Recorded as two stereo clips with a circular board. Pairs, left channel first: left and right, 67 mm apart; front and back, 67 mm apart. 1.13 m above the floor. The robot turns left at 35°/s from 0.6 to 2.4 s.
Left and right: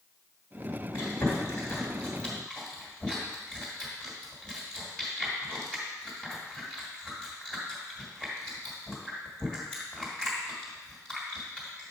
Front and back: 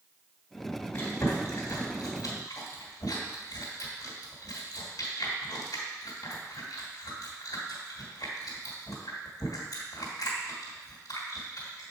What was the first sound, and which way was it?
Chewing, 60° left.